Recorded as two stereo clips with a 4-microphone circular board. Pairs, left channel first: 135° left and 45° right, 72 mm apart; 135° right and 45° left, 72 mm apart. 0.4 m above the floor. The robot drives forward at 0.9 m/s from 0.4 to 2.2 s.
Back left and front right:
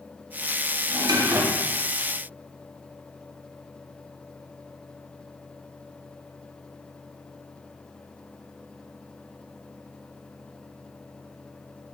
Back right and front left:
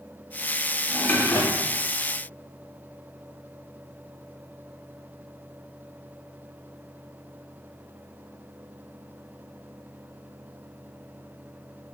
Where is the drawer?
50° right, 0.6 m; by 1.8 s 135° right, 0.6 m.